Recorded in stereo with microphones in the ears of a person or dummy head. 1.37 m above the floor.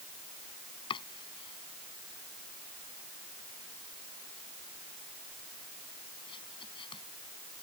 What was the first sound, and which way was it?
Chopping, 30° left (ahead or behind).